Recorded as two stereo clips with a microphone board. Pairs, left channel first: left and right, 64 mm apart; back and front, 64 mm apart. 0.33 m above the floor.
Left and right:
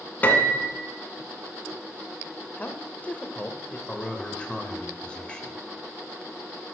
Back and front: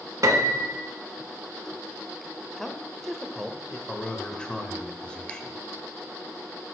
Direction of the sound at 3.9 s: 130° left.